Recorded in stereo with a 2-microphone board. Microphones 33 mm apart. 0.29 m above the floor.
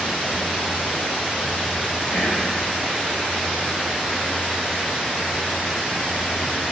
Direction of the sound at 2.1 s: 20° right (ahead or behind).